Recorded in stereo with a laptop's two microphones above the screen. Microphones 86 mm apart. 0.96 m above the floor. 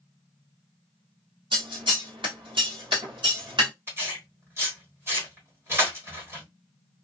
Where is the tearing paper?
30° right (ahead or behind), 1.2 m.